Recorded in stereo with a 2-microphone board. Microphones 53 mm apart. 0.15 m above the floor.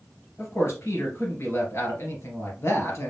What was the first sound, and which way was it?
A man speaking, 55° left (ahead or behind).